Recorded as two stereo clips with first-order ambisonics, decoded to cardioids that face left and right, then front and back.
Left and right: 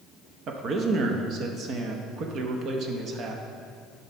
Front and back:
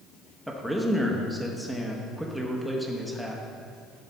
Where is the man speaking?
90° right, 0.7 m.